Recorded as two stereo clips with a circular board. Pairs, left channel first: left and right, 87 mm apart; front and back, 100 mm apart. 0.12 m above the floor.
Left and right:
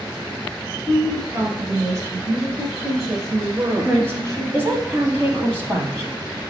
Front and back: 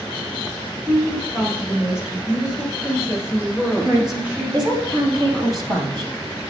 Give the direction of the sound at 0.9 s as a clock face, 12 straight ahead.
3 o'clock.